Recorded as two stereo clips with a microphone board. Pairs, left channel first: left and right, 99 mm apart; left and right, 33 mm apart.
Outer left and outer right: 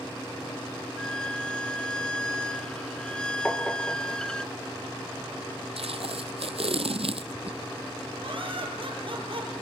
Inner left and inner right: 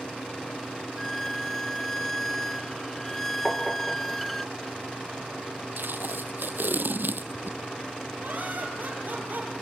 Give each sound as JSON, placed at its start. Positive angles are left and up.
{"t": 1.0, "sound": "a violin", "side_deg": 10, "distance_m": 0.7}
{"t": 3.5, "sound": "tapping", "side_deg": 10, "distance_m": 2.5}
{"t": 5.8, "sound": "tape being pulled", "side_deg": -80, "distance_m": 0.7}
{"t": 8.2, "sound": "laughter", "side_deg": -60, "distance_m": 4.5}